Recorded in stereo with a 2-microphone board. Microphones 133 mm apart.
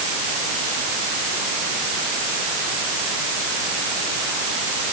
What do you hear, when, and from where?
Only background noise.